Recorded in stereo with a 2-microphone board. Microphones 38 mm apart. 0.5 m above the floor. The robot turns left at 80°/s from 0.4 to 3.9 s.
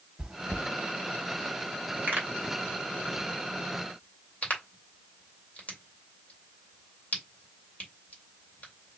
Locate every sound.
0.2 s chewing: 15° right (ahead or behind), 0.6 m; by 0.7 s centre (ahead or behind), 0.6 m
2.1 s a pop: 55° right (ahead or behind), 2 m; by 9.0 s 40° left (ahead or behind), 2 m